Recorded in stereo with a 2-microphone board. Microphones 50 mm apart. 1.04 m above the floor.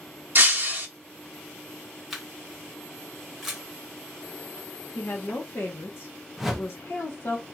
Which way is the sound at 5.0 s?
55° left (ahead or behind).